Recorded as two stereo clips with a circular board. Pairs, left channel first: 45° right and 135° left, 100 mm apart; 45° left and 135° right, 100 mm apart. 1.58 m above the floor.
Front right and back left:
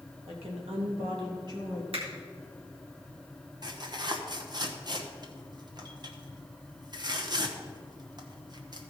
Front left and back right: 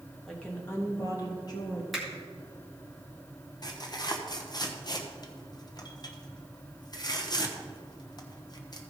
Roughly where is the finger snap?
Behind left.